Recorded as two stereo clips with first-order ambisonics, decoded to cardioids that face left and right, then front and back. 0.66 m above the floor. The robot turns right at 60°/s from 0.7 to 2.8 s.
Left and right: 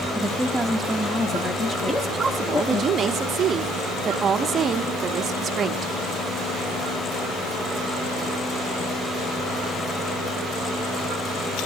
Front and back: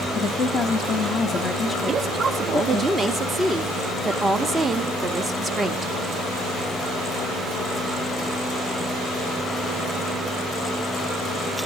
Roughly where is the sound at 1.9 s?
Behind.